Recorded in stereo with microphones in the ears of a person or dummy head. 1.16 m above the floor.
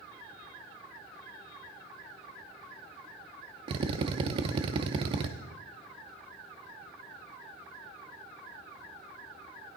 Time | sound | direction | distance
3.7 | a drill | 30° right (ahead or behind) | 0.7 m